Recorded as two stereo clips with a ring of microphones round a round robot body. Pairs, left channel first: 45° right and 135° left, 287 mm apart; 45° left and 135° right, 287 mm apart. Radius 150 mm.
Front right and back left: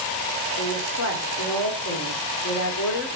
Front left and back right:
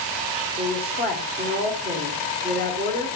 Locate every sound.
0.6 s a woman speaking: 80° right, 2 m